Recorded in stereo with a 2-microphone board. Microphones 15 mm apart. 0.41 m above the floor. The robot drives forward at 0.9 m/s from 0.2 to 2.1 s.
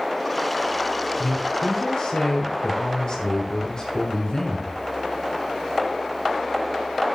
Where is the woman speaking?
40° left (ahead or behind), 6 m; by 4.8 s 45° left (ahead or behind), 5.5 m.